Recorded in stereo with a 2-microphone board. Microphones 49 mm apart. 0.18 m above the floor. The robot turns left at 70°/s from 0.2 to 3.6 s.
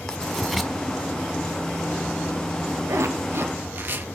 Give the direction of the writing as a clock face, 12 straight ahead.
11 o'clock.